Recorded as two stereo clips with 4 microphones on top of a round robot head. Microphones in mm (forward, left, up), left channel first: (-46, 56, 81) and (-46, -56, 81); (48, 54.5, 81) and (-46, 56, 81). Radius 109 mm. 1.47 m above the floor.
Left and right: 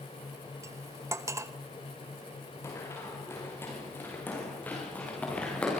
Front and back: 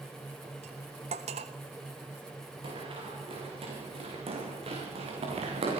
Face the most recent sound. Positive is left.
turn(degrees=170)